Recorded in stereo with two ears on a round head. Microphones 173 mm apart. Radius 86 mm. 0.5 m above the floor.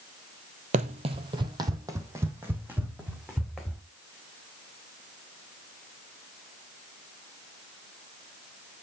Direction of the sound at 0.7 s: 40° right (ahead or behind).